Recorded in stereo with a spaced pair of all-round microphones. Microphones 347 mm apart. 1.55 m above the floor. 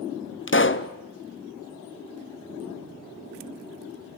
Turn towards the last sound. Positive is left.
turn(degrees=35)  # may be behind; listen again after turning